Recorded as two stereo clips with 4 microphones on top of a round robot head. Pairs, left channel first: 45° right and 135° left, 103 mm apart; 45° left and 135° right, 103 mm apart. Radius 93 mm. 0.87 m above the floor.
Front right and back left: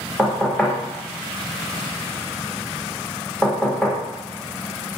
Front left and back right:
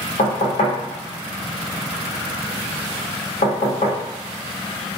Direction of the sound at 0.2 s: 40° left.